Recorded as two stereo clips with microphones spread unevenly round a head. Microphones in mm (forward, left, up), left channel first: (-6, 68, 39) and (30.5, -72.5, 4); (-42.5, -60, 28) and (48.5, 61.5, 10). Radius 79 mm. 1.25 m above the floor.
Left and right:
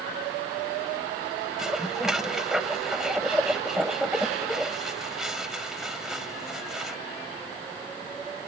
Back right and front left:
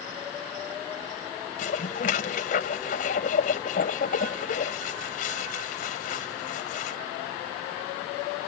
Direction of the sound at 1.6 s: 165° right.